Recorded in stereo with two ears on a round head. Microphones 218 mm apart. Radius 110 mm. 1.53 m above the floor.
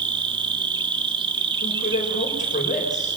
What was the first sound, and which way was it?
An insect, 20° right (ahead or behind).